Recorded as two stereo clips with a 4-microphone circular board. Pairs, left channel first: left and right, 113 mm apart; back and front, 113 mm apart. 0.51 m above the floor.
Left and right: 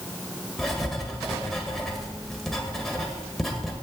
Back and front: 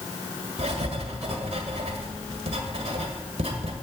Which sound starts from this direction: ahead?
Writing, at 0.6 s.